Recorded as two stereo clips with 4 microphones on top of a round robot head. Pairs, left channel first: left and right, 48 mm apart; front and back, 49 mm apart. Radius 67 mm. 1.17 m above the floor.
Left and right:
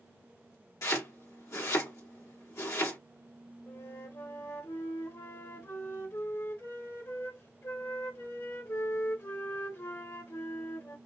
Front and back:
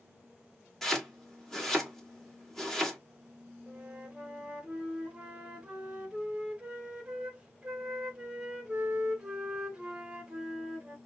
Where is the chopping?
80° left, 2 m.